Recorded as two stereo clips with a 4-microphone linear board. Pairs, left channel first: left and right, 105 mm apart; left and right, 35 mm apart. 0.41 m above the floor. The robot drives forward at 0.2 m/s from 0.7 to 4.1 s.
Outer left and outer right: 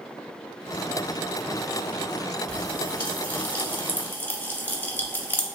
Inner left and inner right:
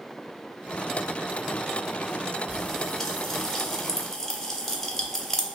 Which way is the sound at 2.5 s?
10° left (ahead or behind).